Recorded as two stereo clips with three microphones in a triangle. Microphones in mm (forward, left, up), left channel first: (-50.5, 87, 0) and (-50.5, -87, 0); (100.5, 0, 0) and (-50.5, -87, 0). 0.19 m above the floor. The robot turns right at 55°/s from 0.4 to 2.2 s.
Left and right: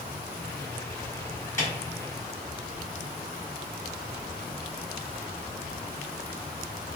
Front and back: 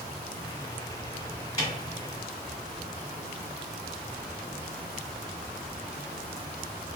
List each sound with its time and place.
1.6 s a snare drum: 25° left, 1.9 m; by 1.7 s 35° left, 1.9 m